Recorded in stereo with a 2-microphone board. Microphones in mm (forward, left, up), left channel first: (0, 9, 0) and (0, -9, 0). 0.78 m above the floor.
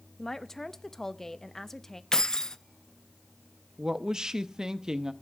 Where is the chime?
I don't hear a chime.